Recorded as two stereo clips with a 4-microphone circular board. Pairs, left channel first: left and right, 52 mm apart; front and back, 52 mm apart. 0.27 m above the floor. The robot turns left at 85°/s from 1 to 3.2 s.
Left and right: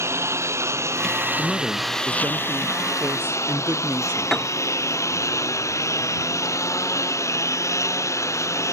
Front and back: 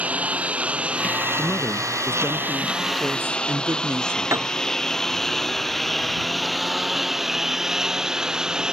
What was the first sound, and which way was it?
A lawn mower, 115° right.